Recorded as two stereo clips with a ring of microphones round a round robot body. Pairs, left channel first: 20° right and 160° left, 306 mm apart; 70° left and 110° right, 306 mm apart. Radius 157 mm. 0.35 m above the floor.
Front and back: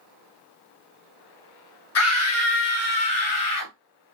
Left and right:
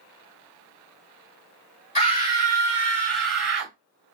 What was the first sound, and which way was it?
A scream, straight ahead.